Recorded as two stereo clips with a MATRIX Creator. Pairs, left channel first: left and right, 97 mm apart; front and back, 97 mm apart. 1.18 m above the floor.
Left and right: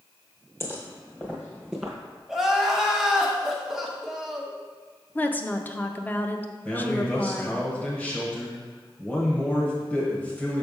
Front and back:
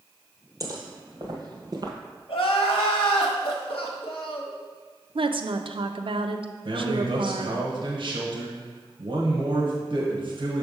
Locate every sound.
0.6 s footsteps: 145° left, 1.8 m; by 1.9 s straight behind, 1.6 m
2.3 s crying: straight ahead, 1.0 m
5.2 s a woman speaking: 160° left, 0.5 m
6.7 s a man speaking: 165° left, 1.3 m